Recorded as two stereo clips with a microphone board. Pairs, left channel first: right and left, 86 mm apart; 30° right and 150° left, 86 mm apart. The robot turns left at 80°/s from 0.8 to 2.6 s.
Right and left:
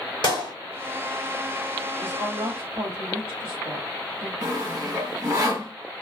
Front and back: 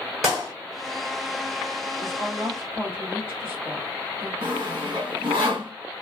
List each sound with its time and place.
0.2 s a clap: 120° right, 3.5 m
2.0 s a woman speaking: 135° left, 2 m; by 4.3 s 85° left, 2 m
4.4 s sawing: 130° left, 1.6 m